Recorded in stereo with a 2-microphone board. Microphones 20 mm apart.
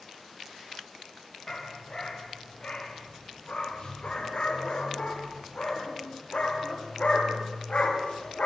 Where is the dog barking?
40° left (ahead or behind), 5 m; by 8.5 s 80° left, 6 m.